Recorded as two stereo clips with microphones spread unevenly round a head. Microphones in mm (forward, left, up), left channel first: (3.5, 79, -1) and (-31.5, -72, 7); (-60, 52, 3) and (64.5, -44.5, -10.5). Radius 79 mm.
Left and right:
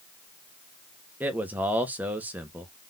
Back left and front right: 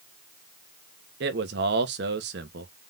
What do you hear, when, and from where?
1.2 s a man speaking: 20° right, 1.0 m